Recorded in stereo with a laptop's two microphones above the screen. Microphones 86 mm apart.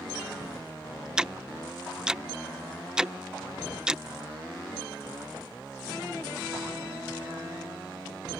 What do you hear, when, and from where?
1.2 s ticking: 10° right (ahead or behind)